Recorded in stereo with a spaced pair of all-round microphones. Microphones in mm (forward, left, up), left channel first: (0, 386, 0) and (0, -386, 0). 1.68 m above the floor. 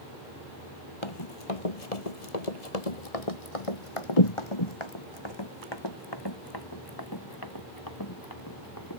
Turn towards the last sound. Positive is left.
turn(degrees=25)  # may be behind; listen again after turning